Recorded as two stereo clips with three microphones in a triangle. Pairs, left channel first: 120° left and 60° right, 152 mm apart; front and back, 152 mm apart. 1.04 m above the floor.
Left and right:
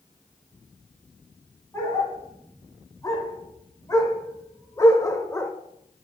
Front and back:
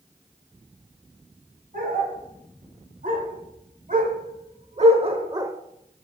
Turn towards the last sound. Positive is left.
turn(degrees=160)